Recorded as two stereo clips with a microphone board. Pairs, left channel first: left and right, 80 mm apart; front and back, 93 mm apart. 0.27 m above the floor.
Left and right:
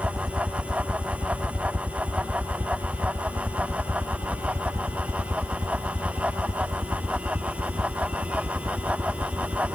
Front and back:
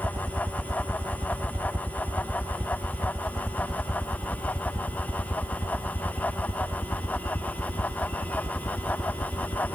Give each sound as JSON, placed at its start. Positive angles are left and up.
{"t": 0.0, "sound": "a helicopter", "azimuth_deg": -170}